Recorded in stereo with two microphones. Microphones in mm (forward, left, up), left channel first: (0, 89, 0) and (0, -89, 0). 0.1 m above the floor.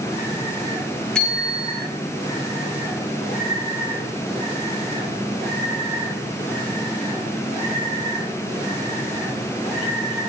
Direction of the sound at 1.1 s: 5° left (ahead or behind).